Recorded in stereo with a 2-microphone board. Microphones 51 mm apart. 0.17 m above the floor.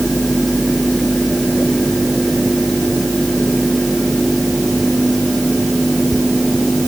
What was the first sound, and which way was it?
Only background noise.